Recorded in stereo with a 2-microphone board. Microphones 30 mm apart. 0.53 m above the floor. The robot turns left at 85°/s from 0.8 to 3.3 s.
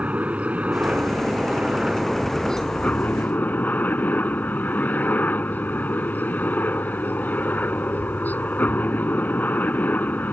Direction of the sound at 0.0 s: 55° right.